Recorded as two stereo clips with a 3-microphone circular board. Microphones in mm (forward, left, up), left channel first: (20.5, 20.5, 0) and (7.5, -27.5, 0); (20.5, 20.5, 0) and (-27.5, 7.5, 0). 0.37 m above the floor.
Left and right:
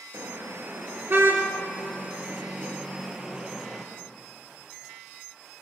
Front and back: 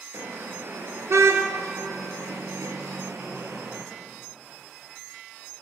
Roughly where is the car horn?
Behind right.